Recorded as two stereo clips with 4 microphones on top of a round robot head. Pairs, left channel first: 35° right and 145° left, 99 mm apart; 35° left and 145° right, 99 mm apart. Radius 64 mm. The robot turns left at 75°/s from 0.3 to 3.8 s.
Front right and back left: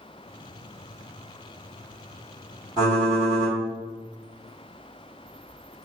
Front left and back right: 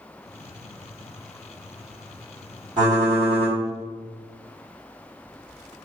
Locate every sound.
2.8 s typing on a keyboard: straight behind, 1.8 m; by 3.6 s 120° left, 1.8 m